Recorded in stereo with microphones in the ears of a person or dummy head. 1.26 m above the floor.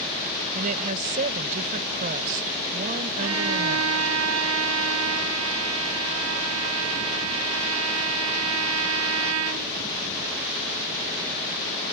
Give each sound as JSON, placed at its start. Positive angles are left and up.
{"t": 0.6, "sound": "a woman speaking", "side_deg": -45}
{"t": 3.2, "sound": "a violin", "side_deg": -85}